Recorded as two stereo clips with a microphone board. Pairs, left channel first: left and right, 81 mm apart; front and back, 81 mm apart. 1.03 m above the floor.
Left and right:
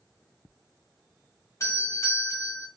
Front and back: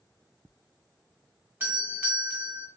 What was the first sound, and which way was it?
A doorbell, 125° left.